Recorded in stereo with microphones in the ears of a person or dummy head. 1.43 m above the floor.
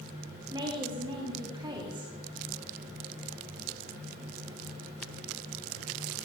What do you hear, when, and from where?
0.5 s a woman speaking: 20° right (ahead or behind), 3 m